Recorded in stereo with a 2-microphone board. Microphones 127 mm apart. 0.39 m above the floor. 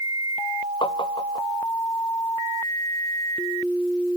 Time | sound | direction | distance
0.8 | tapping | 45° left (ahead or behind) | ?